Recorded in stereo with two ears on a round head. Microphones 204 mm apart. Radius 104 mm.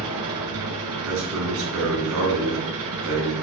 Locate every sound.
0.0 s an engine running: 80° right, 2.5 m
1.1 s a man speaking: 60° right (ahead or behind), 3.5 m